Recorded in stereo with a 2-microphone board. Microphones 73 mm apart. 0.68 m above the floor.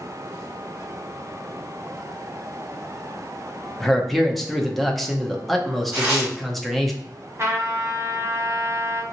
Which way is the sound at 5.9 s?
15° right (ahead or behind).